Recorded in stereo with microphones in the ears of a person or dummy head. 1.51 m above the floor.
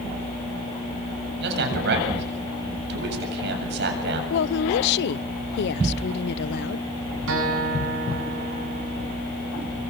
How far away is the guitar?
About 7 m.